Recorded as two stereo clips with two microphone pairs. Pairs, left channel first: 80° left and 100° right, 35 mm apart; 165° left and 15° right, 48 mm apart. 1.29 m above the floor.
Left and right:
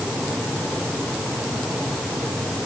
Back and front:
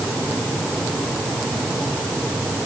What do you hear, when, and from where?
Only background noise.